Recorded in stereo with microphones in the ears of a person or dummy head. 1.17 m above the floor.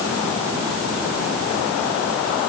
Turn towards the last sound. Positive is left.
No sound to turn to.